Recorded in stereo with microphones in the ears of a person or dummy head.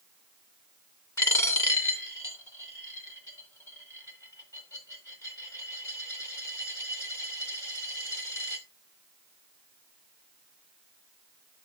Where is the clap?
I don't hear a clap.